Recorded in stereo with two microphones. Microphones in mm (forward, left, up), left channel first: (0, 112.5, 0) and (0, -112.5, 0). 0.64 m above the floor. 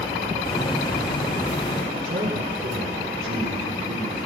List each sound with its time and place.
0.5 s a hiss: 20° left (ahead or behind), 6 m
1.9 s a man speaking: 65° right (ahead or behind), 7 m